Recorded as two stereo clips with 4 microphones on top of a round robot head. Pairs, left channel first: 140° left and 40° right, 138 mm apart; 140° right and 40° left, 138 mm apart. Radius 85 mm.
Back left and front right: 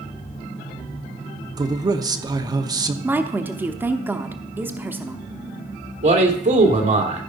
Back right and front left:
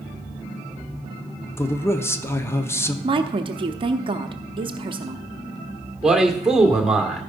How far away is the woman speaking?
About 0.9 m.